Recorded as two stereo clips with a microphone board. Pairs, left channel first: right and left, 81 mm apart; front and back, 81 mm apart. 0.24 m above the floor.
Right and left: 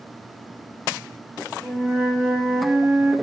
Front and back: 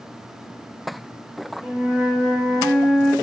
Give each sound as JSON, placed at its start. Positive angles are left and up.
{"t": 1.6, "sound": "a flute", "azimuth_deg": -140, "distance_m": 1.6}